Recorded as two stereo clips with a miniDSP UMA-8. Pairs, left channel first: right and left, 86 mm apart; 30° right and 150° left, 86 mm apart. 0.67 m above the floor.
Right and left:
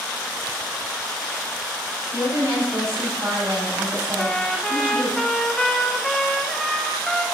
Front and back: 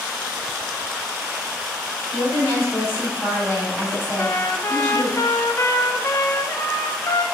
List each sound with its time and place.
2.1 s a woman speaking: 30° left, 3.5 m
4.2 s a trumpet: 5° right, 0.6 m